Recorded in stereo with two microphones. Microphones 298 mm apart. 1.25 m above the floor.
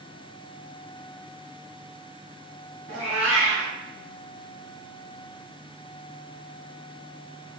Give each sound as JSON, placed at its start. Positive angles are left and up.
{"t": 2.9, "sound": "a cat meowing", "side_deg": -65, "distance_m": 1.8}